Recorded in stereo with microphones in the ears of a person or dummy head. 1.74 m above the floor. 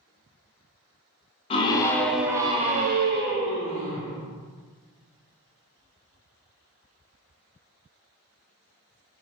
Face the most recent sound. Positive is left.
turn(degrees=-75)  # may be behind; listen again after turning